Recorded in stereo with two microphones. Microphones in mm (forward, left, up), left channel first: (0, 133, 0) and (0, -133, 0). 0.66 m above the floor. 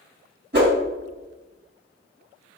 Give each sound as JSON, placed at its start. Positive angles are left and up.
{"t": 0.5, "sound": "a whoosh", "side_deg": -40, "distance_m": 1.4}